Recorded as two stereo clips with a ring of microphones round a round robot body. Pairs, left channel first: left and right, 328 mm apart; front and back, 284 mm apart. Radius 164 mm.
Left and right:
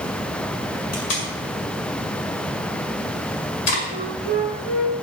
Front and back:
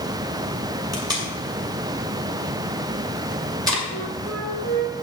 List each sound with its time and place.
0.9 s tape being pulled: 105° left, 6.5 m
3.9 s a flute: 115° left, 8 m